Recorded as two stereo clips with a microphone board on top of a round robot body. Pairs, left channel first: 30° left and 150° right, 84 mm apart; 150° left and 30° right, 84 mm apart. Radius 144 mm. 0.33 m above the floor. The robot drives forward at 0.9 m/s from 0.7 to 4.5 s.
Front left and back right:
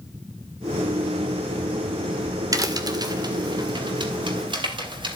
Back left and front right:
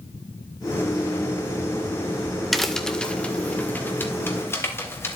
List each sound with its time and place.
2.5 s a crack: 120° right, 2 m; by 5.2 s 155° right, 3.5 m